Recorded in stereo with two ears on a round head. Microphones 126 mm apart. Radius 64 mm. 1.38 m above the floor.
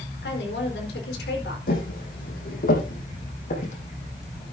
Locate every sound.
0.2 s a woman speaking: 85° left, 4.5 m
1.7 s footsteps: 70° left (ahead or behind), 4 m; by 4.5 s 45° left (ahead or behind), 4.5 m